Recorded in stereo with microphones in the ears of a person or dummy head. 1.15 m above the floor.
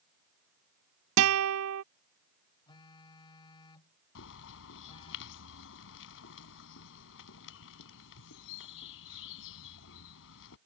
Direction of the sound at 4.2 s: 70° left (ahead or behind).